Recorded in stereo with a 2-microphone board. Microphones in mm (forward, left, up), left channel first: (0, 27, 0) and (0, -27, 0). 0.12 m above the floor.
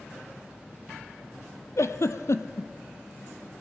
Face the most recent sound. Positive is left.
turn(degrees=70)  # may be behind; listen again after turning